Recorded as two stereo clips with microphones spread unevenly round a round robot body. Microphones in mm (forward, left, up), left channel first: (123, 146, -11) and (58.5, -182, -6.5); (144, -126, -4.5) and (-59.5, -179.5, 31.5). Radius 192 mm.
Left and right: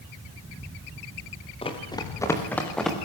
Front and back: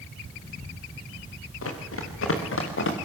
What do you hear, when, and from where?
1.6 s running footsteps: 5° left, 4 m; by 3.0 s 10° right, 4 m